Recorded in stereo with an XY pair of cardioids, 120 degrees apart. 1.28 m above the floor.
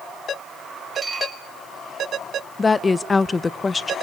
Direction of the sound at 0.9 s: 10° right.